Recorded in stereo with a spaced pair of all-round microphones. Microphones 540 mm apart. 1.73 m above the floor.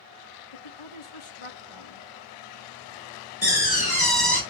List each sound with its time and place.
0.5 s a woman speaking: 65° left (ahead or behind), 1.2 m
3.4 s a door slam: 40° left (ahead or behind), 2 m